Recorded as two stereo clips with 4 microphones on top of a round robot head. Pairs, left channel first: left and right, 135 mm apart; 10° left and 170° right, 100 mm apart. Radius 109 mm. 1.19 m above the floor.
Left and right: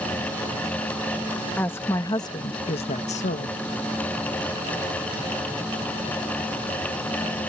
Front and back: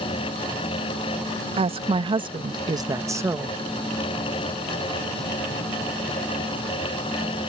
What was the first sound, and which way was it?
A woman speaking, 170° left.